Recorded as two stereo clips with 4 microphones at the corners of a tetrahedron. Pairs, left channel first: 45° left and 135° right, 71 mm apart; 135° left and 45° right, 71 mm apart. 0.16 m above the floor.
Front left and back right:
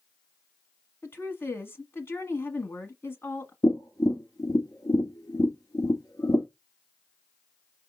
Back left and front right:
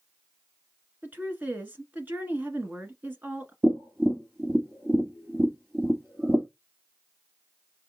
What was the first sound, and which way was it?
A woman speaking, 10° left.